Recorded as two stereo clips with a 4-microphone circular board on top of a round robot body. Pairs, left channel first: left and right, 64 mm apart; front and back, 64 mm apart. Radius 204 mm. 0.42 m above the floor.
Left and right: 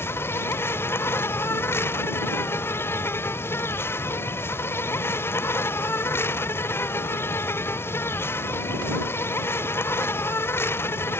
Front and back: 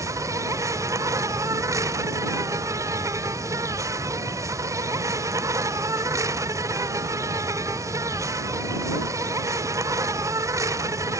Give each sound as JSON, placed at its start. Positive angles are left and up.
{"t": 0.0, "sound": "an insect", "azimuth_deg": 145}